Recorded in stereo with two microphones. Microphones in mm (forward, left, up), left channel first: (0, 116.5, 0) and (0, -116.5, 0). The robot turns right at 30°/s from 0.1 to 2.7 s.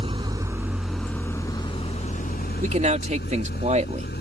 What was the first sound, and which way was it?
An engine running, 25° right.